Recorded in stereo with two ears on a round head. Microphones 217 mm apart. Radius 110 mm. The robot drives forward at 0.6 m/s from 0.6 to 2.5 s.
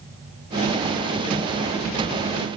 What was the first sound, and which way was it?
Only background noise.